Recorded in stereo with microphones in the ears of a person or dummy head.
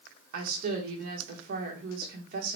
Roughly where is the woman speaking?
Right.